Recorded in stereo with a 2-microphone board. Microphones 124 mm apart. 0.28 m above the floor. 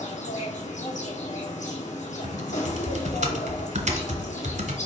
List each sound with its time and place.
0.0 s an insect: 85° left, 1.4 m
2.2 s typing on a keyboard: 75° right (ahead or behind), 1.1 m